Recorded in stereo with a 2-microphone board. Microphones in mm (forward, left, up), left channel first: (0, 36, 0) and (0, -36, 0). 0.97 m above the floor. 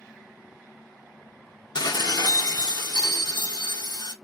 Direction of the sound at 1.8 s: 80° left.